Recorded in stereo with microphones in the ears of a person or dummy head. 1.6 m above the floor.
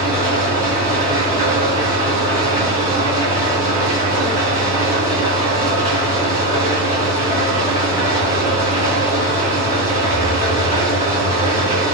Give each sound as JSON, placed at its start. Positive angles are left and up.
{"t": 0.0, "sound": "an engine running", "side_deg": 35, "distance_m": 1.8}